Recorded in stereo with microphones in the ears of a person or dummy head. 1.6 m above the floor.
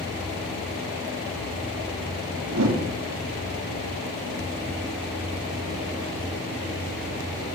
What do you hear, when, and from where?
2.5 s a whoosh: 65° right (ahead or behind), 3 m